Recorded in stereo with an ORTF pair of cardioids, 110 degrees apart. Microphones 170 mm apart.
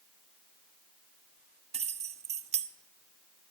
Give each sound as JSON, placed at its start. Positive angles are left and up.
{"t": 1.7, "sound": "keys jangling", "azimuth_deg": -40, "distance_m": 0.9}